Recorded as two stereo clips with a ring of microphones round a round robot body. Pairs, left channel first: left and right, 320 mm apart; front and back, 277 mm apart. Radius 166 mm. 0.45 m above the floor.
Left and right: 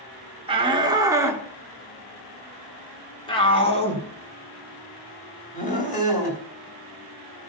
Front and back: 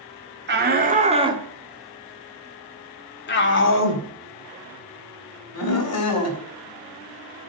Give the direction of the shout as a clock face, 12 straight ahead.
5 o'clock.